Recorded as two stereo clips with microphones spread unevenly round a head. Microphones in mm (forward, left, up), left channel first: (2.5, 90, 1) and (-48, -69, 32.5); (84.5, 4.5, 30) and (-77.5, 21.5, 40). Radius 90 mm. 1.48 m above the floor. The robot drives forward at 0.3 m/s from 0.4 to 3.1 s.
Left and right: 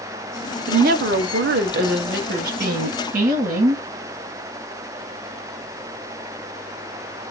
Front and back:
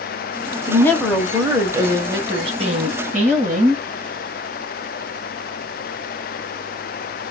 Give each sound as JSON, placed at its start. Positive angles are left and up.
{"t": 0.7, "sound": "a woman speaking", "azimuth_deg": -80, "distance_m": 0.6}